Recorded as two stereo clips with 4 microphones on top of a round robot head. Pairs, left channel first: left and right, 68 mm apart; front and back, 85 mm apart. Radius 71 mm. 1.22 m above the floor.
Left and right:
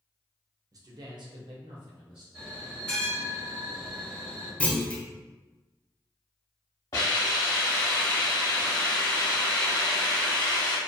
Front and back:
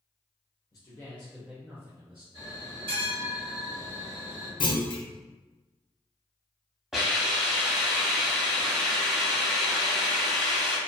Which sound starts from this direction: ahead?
A clunk, at 4.6 s.